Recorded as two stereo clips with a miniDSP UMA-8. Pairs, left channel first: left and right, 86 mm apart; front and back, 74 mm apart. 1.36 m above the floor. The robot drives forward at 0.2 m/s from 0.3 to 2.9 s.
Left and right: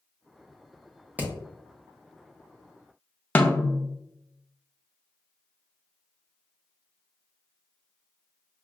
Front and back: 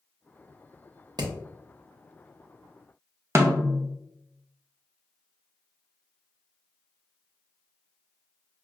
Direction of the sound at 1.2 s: 160° right.